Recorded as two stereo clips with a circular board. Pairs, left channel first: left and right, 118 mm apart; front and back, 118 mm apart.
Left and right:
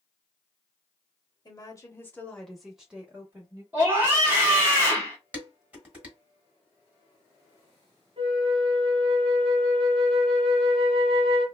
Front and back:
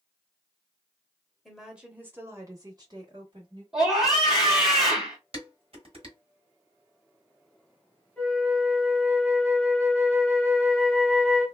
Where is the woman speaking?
90° left, 1.0 m; by 3.6 s 150° right, 1.3 m.